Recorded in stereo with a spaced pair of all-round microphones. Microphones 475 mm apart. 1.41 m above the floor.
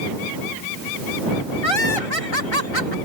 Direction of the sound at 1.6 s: 75° left (ahead or behind).